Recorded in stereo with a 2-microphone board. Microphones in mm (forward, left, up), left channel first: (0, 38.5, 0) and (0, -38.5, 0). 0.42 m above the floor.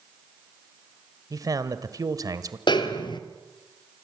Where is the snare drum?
80° left, 2 m.